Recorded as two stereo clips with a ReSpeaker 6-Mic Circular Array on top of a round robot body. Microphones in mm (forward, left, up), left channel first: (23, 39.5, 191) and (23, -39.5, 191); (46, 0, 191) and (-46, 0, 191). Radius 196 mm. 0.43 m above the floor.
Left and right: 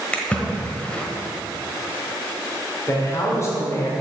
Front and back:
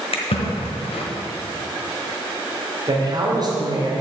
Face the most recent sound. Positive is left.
turn(degrees=140)